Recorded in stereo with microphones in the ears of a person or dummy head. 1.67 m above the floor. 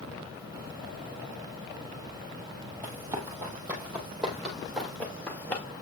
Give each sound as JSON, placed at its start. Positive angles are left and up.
{"t": 2.8, "sound": "running footsteps", "side_deg": -15, "distance_m": 3.0}